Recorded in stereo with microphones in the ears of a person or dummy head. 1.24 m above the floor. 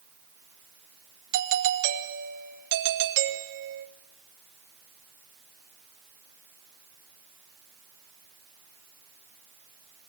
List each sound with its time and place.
1.3 s a doorbell: 70° right (ahead or behind), 2 m